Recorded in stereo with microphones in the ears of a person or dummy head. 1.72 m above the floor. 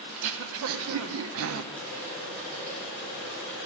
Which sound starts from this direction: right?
Throat clearing, at 0.1 s.